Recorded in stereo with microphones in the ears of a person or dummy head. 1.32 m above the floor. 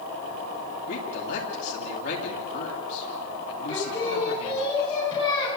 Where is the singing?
30° left (ahead or behind), 8.5 m.